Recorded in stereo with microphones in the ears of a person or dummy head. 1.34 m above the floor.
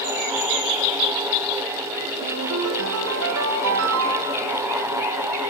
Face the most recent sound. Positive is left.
turn(degrees=-70)  # may be behind; listen again after turning